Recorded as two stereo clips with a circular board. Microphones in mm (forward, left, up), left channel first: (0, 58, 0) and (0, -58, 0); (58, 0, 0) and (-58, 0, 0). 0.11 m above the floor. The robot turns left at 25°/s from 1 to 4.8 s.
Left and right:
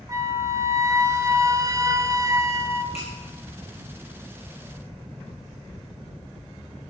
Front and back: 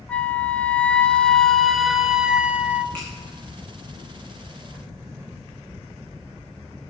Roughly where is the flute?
Right.